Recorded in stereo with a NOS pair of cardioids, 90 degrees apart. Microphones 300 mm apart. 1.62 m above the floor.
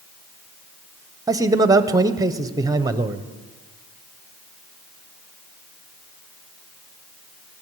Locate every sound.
1.3 s a man speaking: 10° right, 0.7 m